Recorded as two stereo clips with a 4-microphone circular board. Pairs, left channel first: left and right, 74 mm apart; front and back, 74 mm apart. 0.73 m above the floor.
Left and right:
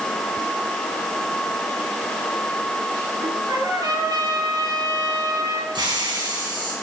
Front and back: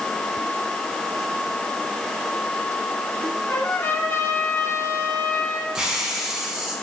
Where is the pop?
I don't hear a pop.